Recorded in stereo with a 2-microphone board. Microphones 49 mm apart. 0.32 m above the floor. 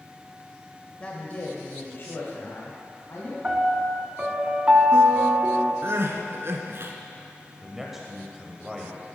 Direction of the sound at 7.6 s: 5° right (ahead or behind).